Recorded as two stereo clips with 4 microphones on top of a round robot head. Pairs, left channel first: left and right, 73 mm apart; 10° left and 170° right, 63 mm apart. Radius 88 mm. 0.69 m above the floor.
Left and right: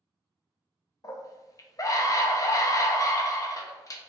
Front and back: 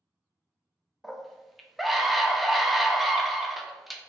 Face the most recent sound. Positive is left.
turn(degrees=100)